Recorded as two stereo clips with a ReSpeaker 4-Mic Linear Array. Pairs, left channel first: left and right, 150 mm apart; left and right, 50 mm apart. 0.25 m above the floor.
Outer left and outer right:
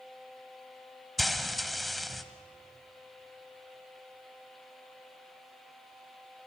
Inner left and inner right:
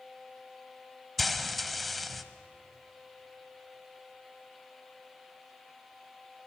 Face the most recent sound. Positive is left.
turn(degrees=0)  # may be behind; listen again after turning